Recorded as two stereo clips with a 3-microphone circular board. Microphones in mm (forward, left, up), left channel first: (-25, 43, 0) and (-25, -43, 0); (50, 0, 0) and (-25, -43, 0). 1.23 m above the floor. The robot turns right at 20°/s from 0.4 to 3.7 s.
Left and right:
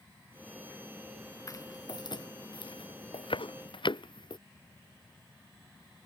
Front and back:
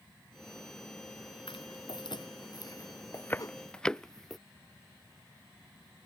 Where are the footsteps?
40° left; by 4.4 s 120° left.